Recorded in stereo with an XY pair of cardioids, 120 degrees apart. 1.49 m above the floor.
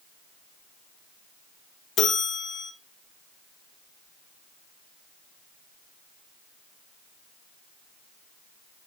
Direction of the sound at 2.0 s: 65° left.